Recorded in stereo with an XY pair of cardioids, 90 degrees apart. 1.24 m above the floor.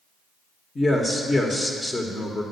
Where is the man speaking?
25° left, 1.1 m.